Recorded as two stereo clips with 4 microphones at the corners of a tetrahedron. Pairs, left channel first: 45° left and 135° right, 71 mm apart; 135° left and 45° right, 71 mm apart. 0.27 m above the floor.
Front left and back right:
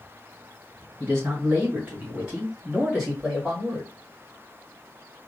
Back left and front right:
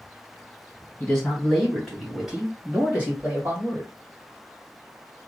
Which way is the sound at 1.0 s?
165° right.